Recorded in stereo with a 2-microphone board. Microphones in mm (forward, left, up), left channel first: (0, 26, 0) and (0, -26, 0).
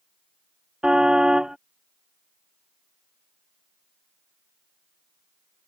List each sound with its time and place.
0.8 s a car horn: 15° right (ahead or behind)